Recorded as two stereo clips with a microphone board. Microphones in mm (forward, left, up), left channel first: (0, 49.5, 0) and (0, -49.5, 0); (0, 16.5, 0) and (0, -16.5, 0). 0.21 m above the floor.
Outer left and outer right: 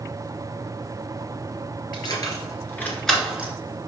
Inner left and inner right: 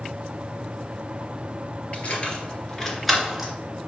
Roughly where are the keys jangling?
Left.